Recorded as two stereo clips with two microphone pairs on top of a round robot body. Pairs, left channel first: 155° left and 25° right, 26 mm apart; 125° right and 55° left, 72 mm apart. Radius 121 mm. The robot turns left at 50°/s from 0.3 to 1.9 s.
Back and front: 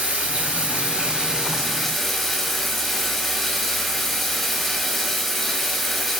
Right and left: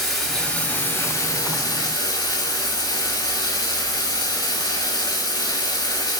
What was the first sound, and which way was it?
Running water, 35° right.